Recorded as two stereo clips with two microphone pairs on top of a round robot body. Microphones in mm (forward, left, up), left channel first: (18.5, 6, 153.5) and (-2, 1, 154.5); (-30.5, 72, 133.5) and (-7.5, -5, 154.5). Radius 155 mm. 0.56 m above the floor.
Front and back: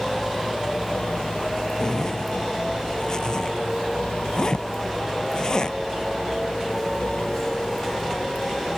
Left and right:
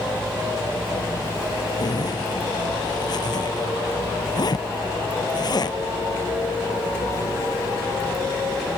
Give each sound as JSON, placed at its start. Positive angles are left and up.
{"t": 1.8, "sound": "a zipper", "azimuth_deg": 70}